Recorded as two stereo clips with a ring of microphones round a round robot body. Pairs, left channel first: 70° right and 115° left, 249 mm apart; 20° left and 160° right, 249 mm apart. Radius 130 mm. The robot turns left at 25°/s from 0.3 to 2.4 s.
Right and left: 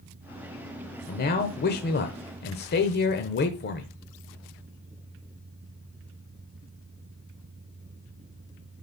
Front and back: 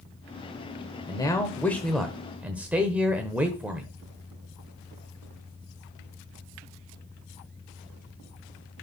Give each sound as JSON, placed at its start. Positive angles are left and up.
{"t": 1.1, "sound": "a man speaking", "azimuth_deg": -40, "distance_m": 1.0}